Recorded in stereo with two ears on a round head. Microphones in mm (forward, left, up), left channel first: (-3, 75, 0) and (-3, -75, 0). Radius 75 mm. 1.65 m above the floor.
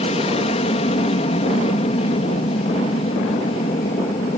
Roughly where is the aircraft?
Left.